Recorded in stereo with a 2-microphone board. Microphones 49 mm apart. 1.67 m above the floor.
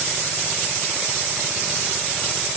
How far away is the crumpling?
No crumpling in this recording.